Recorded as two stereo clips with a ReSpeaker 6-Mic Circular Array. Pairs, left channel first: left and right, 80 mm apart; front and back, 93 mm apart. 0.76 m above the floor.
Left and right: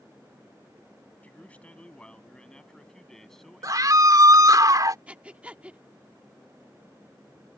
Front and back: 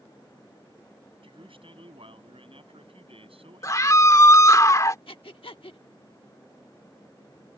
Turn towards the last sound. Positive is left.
turn(degrees=-15)